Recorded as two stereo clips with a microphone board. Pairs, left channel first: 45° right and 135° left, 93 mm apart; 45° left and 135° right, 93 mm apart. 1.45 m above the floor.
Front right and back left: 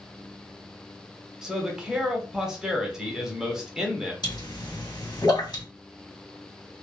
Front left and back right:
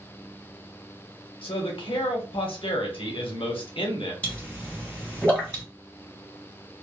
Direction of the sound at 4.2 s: 25° right.